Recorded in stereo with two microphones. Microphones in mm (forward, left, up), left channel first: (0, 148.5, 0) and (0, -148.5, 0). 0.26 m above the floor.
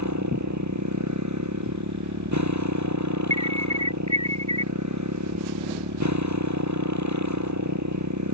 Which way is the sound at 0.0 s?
70° right (ahead or behind).